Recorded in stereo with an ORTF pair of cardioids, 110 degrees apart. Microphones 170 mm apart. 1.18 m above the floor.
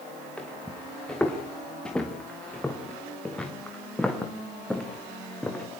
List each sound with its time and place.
0.4 s footsteps: 5° left, 5 m